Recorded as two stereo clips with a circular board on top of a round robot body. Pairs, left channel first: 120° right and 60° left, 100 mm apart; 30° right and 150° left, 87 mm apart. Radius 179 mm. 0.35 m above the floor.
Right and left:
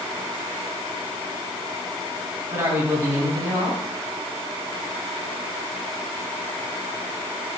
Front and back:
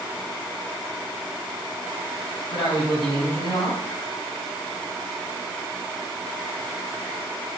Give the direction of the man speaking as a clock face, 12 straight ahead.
12 o'clock.